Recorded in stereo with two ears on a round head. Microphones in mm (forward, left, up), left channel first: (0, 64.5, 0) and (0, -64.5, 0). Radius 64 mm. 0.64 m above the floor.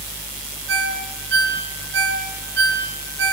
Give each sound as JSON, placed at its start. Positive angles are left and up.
{"t": 0.7, "sound": "a ringtone", "side_deg": -85, "distance_m": 6.5}